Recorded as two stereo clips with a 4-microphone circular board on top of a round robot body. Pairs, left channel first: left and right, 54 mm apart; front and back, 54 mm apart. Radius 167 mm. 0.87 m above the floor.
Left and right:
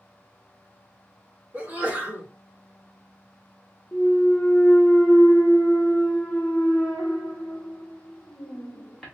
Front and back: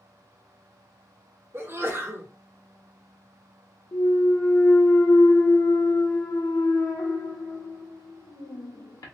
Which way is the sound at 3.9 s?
10° left.